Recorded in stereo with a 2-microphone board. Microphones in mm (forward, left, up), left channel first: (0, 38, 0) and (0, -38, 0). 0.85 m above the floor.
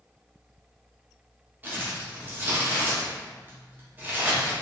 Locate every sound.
1.6 s crumpling: 25° right (ahead or behind), 1.1 m